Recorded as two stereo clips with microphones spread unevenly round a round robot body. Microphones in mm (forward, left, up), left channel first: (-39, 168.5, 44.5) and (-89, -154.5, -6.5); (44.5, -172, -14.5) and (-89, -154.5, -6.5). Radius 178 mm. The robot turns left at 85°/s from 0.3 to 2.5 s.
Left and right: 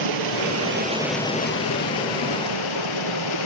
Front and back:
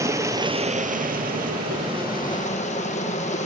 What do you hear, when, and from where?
0.0 s running water: 120° right, 2.5 m; by 3.5 s 55° left, 2.5 m